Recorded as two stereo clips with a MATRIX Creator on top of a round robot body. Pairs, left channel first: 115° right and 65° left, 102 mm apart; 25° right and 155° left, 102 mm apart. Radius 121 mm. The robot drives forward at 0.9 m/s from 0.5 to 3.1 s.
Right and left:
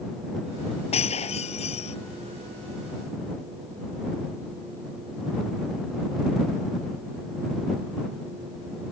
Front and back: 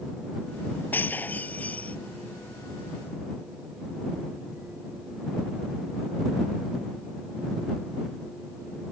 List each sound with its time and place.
0.9 s breaking glass: 95° right; by 2.0 s 100° right